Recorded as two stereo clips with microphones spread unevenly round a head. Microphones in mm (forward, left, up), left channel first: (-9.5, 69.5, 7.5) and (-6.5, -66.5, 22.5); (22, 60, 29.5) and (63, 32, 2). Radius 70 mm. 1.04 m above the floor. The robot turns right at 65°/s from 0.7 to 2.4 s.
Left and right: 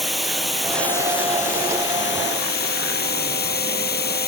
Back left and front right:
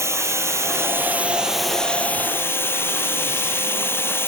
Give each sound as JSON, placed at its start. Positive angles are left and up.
{"t": 0.0, "sound": "running water", "azimuth_deg": 0}